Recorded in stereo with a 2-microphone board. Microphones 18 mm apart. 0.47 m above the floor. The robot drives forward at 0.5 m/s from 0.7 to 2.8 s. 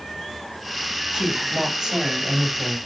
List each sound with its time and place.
1.1 s a woman speaking: 60° right (ahead or behind), 3 m; by 2.8 s 50° right (ahead or behind), 3.5 m